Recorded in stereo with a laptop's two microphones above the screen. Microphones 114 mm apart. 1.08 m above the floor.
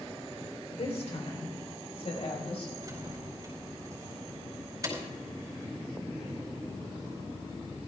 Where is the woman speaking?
65° left (ahead or behind), 4 m; by 2.7 s 60° left (ahead or behind), 6 m.